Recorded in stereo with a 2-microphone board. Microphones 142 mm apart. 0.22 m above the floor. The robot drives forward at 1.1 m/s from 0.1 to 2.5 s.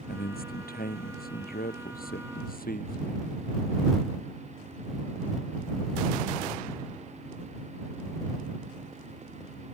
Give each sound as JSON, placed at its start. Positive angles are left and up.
{"t": 0.1, "sound": "a man speaking", "side_deg": 85}